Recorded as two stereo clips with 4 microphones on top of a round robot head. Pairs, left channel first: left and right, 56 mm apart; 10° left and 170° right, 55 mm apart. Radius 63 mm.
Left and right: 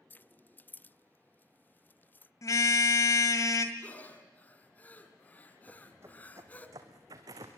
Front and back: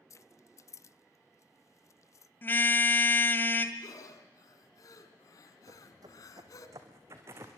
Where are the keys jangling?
35° left, 0.5 m.